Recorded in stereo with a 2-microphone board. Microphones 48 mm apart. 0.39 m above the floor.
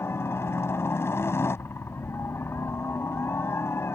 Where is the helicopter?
60° left (ahead or behind).